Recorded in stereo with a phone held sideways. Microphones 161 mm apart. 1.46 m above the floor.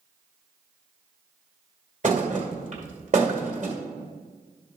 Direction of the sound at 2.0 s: 50° right (ahead or behind).